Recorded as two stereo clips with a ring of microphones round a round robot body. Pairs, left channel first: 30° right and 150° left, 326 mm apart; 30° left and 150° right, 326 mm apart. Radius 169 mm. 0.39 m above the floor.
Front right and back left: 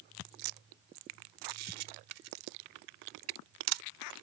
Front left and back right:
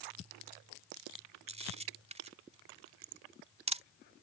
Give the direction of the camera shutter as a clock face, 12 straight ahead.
7 o'clock.